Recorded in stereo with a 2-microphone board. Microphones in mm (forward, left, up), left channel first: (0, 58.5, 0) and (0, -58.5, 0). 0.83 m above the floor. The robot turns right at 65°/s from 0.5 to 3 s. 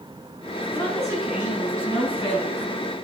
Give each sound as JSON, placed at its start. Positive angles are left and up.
{"t": 0.7, "sound": "a woman speaking", "azimuth_deg": 40, "distance_m": 6.0}